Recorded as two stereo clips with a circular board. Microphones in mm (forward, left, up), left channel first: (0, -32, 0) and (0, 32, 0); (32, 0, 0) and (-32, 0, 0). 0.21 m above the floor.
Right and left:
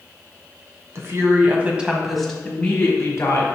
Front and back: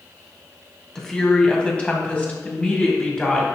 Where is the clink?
No clink in this recording.